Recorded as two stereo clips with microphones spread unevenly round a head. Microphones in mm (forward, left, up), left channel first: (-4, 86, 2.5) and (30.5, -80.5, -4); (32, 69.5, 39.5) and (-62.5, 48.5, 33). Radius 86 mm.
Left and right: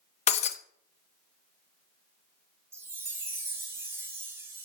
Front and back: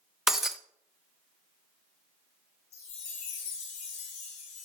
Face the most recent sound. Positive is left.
turn(degrees=0)